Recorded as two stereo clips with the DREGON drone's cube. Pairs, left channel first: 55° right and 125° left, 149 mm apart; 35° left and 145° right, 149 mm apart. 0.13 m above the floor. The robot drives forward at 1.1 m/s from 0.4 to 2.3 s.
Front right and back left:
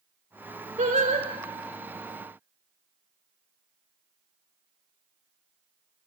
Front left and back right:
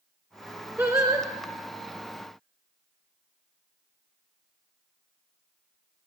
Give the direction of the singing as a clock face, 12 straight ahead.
7 o'clock.